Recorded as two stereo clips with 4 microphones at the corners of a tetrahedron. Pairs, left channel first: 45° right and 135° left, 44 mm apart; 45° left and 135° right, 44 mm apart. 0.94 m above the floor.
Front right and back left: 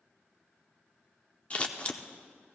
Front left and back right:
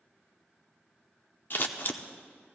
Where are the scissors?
15° left, 0.7 m.